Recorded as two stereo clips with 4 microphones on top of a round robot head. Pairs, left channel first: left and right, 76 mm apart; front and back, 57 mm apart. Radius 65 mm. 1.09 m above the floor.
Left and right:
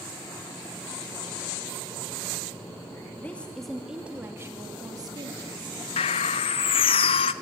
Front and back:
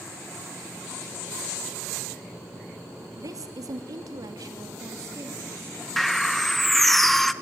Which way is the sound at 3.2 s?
160° left.